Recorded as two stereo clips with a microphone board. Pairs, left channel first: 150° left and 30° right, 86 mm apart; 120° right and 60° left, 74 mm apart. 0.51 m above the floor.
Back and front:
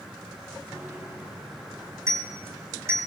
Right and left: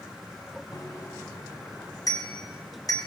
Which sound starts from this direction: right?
A bicycle bell, at 0.7 s.